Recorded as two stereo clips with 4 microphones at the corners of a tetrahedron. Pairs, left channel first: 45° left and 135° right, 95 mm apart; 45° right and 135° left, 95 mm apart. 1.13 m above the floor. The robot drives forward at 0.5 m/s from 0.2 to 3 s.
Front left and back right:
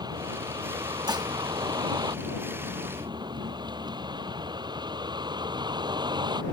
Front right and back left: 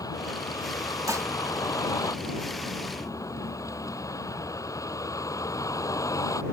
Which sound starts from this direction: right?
A vehicle, at 0.0 s.